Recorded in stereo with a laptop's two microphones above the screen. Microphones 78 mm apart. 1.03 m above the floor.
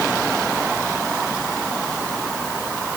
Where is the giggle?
No giggle in this recording.